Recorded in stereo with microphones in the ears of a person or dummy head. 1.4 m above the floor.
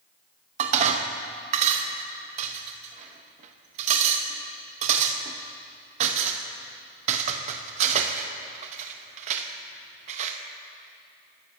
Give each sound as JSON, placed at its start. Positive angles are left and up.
{"t": 0.6, "sound": "dishes clattering", "side_deg": -45, "distance_m": 1.1}